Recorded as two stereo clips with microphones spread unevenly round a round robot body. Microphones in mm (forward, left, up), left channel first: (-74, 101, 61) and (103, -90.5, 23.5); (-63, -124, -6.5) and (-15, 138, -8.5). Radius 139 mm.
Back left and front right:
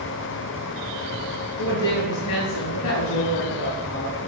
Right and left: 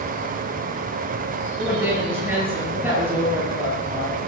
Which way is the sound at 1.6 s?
160° left.